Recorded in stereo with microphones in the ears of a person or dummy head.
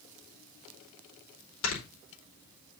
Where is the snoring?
85° left, 4 m.